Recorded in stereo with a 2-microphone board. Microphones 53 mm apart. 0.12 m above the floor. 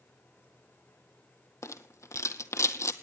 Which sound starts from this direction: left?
A rattle, at 1.6 s.